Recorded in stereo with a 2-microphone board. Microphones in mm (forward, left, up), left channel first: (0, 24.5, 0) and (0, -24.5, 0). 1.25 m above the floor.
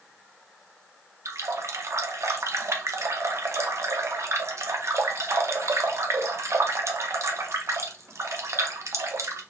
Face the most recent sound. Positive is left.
turn(degrees=-65)  # may be behind; listen again after turning